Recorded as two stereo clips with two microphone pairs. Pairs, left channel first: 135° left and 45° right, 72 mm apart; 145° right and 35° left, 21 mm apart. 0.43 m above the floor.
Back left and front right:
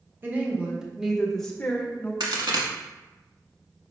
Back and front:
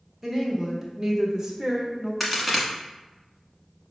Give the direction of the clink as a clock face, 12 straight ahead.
No clink in this recording.